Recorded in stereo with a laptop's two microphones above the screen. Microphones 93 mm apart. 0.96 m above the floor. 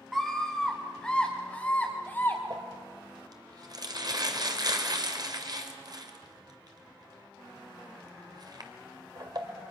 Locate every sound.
0.1 s a scream: 5° right (ahead or behind), 1.8 m; by 2.4 s 30° left (ahead or behind), 1.9 m
2.5 s crumpling: 50° right (ahead or behind), 2 m